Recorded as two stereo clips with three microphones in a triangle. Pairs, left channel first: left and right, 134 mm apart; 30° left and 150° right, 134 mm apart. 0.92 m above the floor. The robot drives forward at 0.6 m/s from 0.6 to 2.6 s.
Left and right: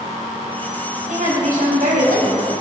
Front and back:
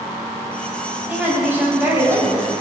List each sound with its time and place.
1.1 s a woman speaking: 70° right, 5 m; by 2.5 s 80° right, 5 m